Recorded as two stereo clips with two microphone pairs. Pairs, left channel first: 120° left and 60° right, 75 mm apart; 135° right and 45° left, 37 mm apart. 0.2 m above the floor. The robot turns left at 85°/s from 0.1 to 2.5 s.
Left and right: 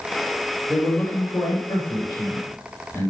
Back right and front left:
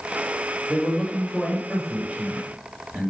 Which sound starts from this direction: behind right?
A man speaking, at 0.7 s.